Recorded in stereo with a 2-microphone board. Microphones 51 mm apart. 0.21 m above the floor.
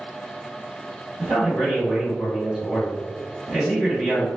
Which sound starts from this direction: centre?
A man speaking, at 1.2 s.